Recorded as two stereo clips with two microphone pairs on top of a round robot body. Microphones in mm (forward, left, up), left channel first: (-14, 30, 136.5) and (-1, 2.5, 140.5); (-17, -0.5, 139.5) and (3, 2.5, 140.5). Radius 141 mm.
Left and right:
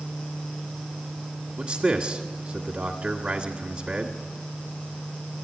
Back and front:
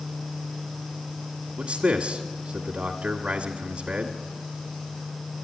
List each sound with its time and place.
1.6 s a man speaking: 15° right, 1.6 m